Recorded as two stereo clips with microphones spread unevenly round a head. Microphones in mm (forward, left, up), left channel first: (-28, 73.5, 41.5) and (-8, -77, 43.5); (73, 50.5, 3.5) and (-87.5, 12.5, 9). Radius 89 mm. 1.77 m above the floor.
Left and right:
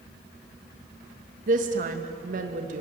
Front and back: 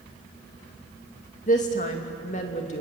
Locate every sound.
1.5 s a woman speaking: 40° right, 2.5 m